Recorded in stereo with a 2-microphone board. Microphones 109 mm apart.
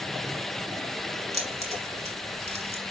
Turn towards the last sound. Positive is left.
turn(degrees=-80)